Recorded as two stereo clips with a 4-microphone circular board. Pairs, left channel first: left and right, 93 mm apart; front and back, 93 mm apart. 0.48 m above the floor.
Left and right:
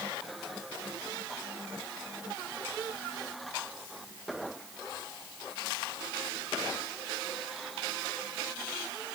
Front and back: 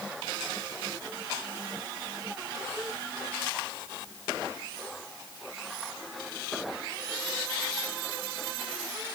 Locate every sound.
Only background noise.